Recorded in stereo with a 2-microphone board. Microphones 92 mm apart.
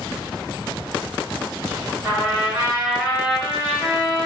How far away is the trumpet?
About 1.6 m.